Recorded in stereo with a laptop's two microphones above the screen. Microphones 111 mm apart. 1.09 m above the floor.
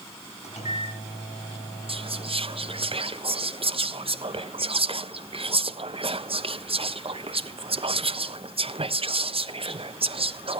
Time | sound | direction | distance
0.4 | a microwave | 70° left (ahead or behind) | 5.5 m
1.9 | whispering | 55° right (ahead or behind) | 1.1 m